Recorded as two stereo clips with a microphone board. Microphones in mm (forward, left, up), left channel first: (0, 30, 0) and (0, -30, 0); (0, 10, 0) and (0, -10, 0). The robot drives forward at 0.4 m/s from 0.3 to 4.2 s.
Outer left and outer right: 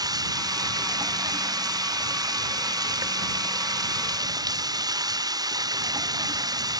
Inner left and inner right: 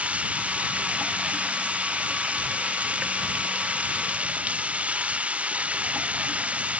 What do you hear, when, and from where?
0.0 s running water: 80° right; by 6.8 s 85° right